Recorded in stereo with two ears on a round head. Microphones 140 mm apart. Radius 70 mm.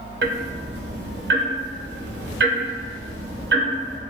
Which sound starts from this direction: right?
Ticking, at 0.2 s.